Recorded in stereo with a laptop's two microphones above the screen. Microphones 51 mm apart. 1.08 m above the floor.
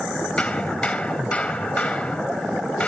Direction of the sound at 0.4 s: 25° left (ahead or behind).